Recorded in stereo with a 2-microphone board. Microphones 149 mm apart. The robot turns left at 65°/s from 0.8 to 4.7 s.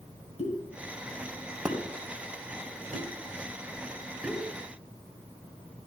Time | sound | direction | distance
0.4 | a pop | 50° left (ahead or behind) | 3 m